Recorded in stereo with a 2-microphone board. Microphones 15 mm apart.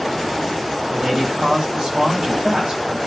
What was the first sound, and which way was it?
A man speaking, 60° right (ahead or behind).